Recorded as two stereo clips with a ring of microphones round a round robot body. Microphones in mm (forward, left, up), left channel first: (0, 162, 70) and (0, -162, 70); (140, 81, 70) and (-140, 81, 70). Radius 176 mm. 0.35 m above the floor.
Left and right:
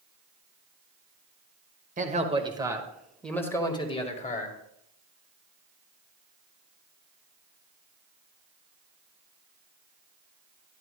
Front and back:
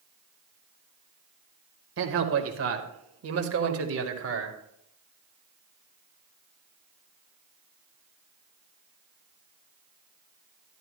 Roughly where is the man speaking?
Behind right.